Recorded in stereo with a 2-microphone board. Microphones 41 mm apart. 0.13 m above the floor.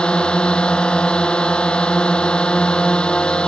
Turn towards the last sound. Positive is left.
turn(degrees=25)  # may be behind; listen again after turning